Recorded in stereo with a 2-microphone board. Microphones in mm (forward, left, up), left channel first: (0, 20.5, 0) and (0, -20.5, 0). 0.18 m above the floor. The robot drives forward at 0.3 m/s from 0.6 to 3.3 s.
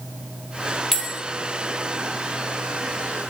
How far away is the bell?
About 0.6 m.